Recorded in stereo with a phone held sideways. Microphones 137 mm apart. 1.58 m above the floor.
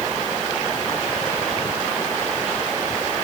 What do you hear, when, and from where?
Only background noise.